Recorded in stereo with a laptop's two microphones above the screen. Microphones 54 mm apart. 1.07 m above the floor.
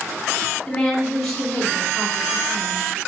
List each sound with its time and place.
0.7 s a woman speaking: 10° left (ahead or behind), 2.5 m